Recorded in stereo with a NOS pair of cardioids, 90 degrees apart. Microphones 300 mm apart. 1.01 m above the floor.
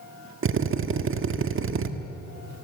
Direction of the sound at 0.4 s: 45° right.